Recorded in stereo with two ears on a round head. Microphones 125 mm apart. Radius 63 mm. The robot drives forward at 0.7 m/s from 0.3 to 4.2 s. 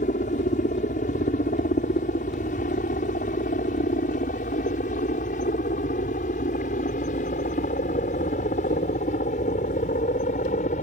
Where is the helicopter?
55° left (ahead or behind); by 10.8 s 50° left (ahead or behind).